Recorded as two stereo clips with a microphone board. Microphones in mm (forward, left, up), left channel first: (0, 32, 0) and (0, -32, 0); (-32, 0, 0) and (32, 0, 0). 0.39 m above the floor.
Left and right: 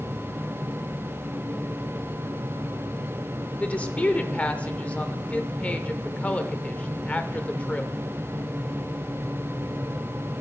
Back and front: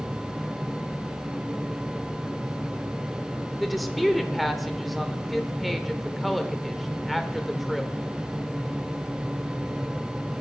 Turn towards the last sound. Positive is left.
turn(degrees=90)